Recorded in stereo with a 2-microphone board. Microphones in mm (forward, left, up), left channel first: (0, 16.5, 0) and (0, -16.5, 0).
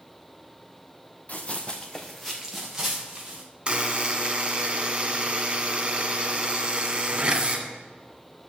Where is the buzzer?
30° right (ahead or behind), 1.8 m.